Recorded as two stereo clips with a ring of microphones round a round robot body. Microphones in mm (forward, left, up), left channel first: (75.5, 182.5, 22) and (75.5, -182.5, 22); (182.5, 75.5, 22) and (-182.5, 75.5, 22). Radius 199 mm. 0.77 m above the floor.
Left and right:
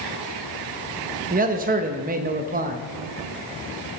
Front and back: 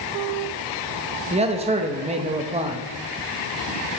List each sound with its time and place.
1.3 s a man speaking: 125° right, 0.9 m